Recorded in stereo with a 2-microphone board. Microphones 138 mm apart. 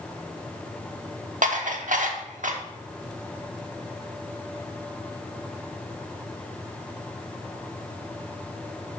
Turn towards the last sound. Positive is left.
turn(degrees=-70)  # may be behind; listen again after turning